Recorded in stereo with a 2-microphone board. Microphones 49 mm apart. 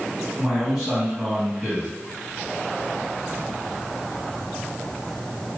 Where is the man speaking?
5° left (ahead or behind), 1.9 m.